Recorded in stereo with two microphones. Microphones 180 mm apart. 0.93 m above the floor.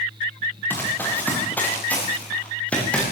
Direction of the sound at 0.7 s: 10° left (ahead or behind).